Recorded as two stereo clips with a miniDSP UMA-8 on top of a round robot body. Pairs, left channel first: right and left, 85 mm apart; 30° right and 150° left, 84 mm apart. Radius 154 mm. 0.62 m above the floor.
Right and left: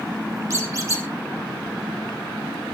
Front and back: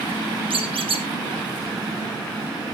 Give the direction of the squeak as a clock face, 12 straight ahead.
7 o'clock.